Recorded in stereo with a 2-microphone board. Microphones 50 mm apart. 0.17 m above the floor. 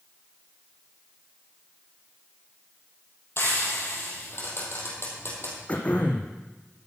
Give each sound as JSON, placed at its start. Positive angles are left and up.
{"t": 3.4, "sound": "frying", "side_deg": 55, "distance_m": 3.0}
{"t": 5.7, "sound": "throat clearing", "side_deg": 30, "distance_m": 1.3}